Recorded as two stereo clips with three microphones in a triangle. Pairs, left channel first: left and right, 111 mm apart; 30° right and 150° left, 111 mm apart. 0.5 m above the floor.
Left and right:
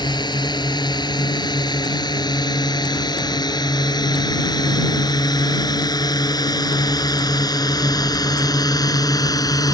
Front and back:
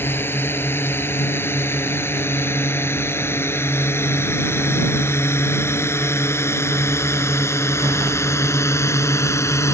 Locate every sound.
0.0 s a drone: 40° left; by 9.7 s 35° left